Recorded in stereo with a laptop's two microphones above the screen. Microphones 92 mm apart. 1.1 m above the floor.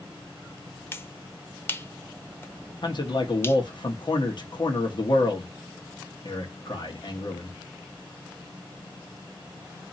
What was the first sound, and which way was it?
A finger snap, 25° left (ahead or behind).